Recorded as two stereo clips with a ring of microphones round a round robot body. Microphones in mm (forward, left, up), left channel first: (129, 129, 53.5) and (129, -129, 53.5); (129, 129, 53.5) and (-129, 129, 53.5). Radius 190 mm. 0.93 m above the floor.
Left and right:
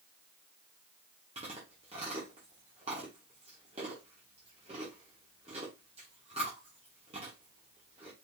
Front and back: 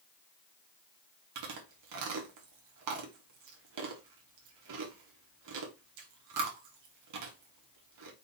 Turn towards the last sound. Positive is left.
turn(degrees=-165)